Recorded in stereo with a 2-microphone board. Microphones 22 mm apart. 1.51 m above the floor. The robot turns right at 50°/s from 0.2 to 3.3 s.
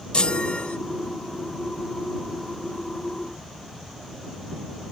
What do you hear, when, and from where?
0.1 s a chime: 50° left (ahead or behind); by 0.8 s 75° left (ahead or behind)